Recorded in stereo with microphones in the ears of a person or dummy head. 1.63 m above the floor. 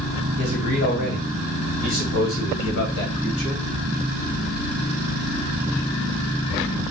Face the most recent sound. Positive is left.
turn(degrees=65)  # may be behind; listen again after turning